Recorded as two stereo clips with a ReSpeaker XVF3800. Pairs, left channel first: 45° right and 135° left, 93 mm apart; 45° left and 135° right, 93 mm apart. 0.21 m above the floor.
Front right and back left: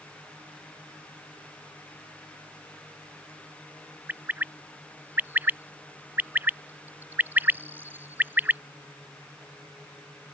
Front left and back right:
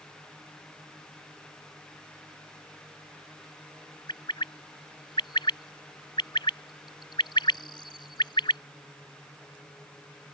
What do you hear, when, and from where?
4.1 s a bird: 70° left